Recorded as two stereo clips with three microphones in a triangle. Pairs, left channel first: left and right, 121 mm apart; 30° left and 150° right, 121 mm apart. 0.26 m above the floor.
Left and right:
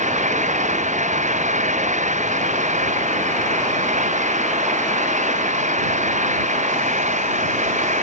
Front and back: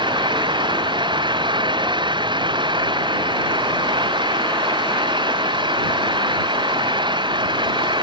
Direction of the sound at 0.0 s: 100° right.